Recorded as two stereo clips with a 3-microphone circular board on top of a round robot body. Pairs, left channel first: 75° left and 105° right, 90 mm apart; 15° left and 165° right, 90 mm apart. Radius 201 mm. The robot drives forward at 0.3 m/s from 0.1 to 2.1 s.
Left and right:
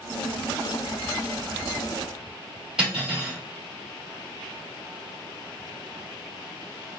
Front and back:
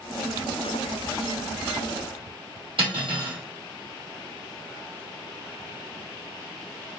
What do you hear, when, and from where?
2.8 s cutlery clinking: 175° left, 2.0 m